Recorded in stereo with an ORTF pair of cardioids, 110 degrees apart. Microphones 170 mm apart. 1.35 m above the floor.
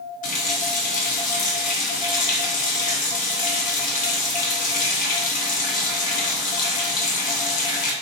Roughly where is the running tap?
Ahead left.